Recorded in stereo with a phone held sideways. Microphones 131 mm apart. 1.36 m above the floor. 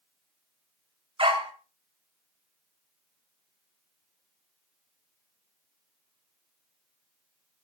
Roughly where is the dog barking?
Right.